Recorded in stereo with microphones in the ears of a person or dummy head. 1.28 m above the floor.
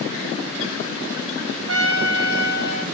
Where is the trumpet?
65° right (ahead or behind), 1.0 m.